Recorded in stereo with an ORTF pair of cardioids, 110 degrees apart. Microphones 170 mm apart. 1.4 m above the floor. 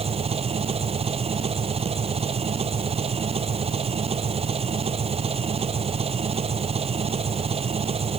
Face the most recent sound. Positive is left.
turn(degrees=-35)